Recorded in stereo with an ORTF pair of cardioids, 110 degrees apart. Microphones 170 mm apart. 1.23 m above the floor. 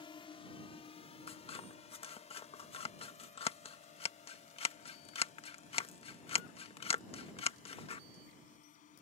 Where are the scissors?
40° left.